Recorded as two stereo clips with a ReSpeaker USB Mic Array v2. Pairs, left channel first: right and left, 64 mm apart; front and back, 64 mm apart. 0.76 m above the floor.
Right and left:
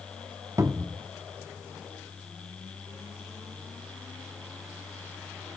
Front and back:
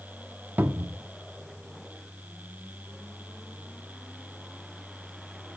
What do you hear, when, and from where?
0.6 s a cupboard door: 120° left, 0.9 m